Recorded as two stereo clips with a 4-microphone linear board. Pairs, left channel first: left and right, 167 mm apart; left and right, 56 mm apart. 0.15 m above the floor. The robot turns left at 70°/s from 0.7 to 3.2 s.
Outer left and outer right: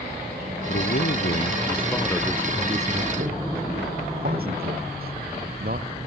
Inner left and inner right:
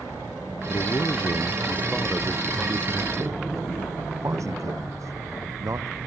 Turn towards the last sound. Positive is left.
turn(degrees=-65)